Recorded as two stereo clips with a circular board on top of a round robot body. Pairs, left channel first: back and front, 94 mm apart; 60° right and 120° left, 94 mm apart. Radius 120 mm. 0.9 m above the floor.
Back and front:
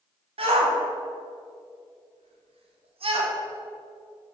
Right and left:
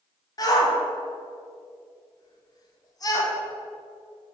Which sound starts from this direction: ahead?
A shout, at 0.4 s.